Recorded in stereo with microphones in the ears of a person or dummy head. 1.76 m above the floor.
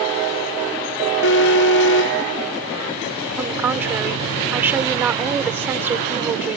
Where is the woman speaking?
10° right (ahead or behind).